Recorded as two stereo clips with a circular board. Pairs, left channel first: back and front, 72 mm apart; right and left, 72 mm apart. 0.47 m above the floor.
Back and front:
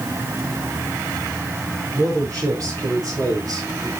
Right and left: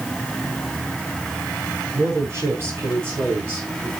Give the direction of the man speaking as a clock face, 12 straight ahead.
11 o'clock.